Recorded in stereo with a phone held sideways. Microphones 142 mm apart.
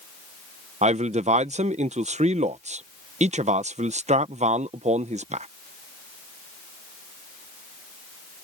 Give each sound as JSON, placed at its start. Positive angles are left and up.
{"t": 0.8, "sound": "a man speaking", "side_deg": -60}